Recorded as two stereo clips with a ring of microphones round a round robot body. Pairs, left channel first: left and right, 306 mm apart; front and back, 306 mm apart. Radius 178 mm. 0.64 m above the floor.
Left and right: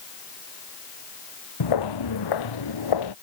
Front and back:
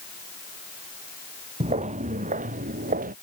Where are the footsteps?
105° left; by 3.1 s 110° left.